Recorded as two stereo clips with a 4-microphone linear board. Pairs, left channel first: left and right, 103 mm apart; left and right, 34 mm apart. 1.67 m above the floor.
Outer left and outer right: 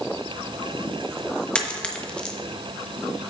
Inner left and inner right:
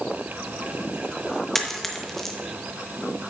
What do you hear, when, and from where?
1.6 s a dropped coin: 10° left (ahead or behind), 1.0 m